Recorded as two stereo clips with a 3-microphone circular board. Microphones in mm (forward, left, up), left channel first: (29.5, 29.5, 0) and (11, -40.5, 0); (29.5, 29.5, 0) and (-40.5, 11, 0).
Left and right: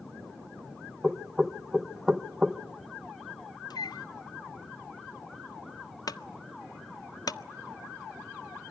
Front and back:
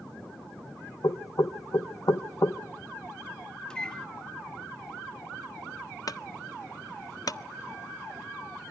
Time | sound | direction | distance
1.0 | knocking | 20° right | 0.8 m
3.7 | a microwave | 95° left | 0.5 m
6.1 | a clunk | 45° left | 0.7 m